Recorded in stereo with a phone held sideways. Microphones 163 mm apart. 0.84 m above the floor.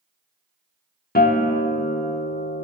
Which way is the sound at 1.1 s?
70° left (ahead or behind).